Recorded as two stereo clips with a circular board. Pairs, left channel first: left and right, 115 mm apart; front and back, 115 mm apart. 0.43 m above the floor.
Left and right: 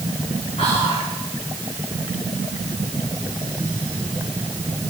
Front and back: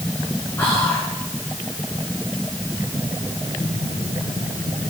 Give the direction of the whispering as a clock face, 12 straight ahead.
10 o'clock.